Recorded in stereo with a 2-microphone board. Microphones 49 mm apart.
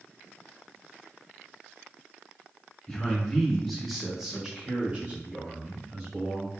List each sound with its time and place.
2.9 s a man speaking: 10° left (ahead or behind), 1.1 m; by 6.5 s 30° right (ahead or behind), 1.3 m